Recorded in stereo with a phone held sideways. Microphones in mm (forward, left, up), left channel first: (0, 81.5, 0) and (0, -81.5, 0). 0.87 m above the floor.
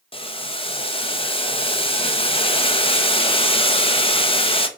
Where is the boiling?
35° left (ahead or behind), 1.1 m.